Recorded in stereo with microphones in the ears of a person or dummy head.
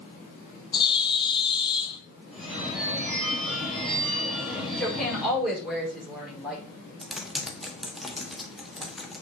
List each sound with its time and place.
0.7 s a bird: 25° left (ahead or behind), 0.9 m
2.3 s a phone ringing: centre (ahead or behind), 3.5 m
4.8 s a woman speaking: centre (ahead or behind), 5.5 m
7.0 s typing on a keyboard: centre (ahead or behind), 1.4 m